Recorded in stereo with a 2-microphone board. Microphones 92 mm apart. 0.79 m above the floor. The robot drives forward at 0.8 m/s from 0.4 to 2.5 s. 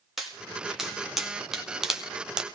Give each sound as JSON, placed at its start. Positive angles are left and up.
{"t": 0.2, "sound": "a pop", "side_deg": -5, "distance_m": 2.0}